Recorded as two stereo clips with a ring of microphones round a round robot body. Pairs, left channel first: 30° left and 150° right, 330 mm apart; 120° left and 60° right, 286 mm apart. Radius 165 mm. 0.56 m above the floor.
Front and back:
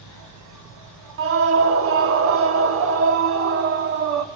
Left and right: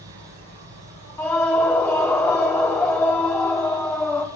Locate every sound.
0.0 s an insect: 110° right, 2.5 m
1.2 s a scream: 160° right, 1.2 m